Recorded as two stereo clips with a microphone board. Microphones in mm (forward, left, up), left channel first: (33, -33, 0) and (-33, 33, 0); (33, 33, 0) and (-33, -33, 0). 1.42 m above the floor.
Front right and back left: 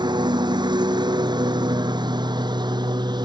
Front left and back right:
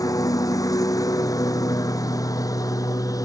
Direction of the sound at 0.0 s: 95° left.